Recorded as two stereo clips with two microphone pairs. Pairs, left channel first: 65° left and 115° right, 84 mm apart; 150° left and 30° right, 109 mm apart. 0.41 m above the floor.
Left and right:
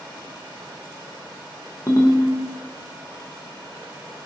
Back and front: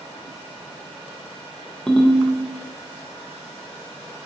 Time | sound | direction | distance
1.9 | a ringtone | 65° left | 0.5 m